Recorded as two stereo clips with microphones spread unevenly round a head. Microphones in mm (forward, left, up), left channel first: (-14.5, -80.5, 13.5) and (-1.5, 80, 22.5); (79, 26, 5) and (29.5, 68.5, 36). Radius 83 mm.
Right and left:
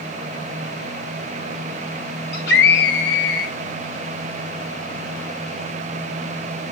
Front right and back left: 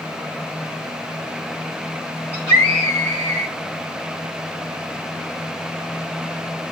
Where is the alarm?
I don't hear an alarm.